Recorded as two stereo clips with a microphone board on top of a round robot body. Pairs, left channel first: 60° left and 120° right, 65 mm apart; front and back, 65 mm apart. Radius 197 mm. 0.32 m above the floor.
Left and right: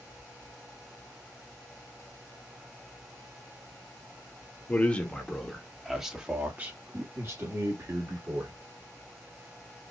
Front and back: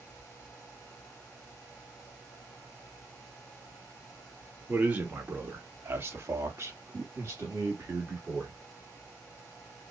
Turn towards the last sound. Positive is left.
turn(degrees=-125)